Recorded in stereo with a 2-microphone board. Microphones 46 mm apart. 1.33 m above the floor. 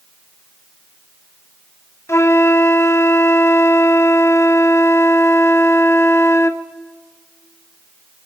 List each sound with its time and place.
2.1 s a flute: 75° left (ahead or behind), 0.6 m